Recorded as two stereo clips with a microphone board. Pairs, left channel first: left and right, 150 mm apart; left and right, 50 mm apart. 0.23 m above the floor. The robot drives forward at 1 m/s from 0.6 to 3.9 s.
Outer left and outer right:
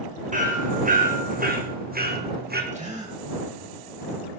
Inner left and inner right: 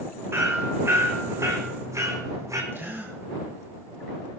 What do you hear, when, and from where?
0.3 s hammering: 55° right (ahead or behind), 3.5 m; by 2.6 s 85° right, 3 m
2.7 s a gasp: 45° right (ahead or behind), 6 m